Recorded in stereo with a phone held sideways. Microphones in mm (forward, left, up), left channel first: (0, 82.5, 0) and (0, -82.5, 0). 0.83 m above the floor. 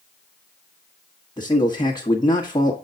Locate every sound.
1.4 s a man speaking: 25° left (ahead or behind), 1.3 m